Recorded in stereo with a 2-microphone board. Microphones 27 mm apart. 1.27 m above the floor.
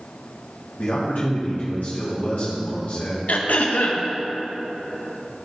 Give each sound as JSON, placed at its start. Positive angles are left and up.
{"t": 0.8, "sound": "a man speaking", "side_deg": 75, "distance_m": 1.7}
{"t": 3.3, "sound": "throat clearing", "side_deg": 80, "distance_m": 0.9}